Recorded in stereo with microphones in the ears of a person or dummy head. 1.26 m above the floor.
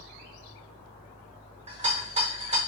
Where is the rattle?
35° right (ahead or behind), 0.6 m.